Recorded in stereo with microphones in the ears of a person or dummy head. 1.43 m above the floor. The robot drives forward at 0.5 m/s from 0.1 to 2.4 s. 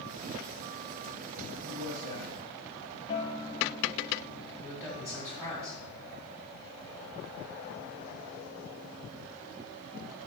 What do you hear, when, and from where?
1.6 s a man speaking: 70° right (ahead or behind), 2.5 m; by 2.4 s 80° right, 2 m
3.1 s a guitar: 30° left (ahead or behind), 0.8 m
4.6 s a man speaking: 10° right (ahead or behind), 3.5 m